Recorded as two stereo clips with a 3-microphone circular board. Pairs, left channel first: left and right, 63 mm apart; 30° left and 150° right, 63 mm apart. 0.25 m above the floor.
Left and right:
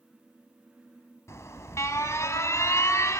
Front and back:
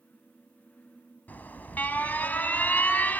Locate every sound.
1.3 s an alarm: 80° left, 1.3 m